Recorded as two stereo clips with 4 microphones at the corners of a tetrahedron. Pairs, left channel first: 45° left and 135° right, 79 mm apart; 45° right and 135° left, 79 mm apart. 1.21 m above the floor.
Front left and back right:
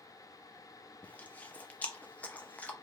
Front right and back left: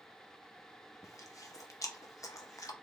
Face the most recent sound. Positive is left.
turn(degrees=-20)